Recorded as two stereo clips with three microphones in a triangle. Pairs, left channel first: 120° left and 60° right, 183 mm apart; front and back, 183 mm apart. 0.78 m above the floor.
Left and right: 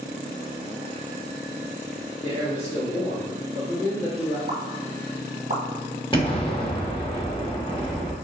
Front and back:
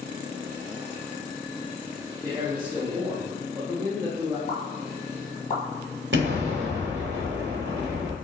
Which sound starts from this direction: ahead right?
A pop, at 4.5 s.